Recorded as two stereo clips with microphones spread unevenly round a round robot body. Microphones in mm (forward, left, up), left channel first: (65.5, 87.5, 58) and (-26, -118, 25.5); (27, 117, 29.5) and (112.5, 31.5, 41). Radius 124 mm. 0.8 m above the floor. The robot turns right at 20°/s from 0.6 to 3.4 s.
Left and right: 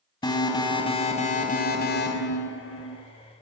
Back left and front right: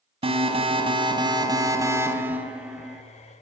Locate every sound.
0.2 s an alarm: 5° right, 4.5 m; by 3.0 s 40° left, 4.5 m